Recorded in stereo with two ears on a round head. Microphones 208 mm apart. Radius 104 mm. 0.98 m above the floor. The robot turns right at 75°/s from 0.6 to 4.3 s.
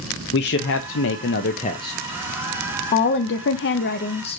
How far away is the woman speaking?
About 0.5 m.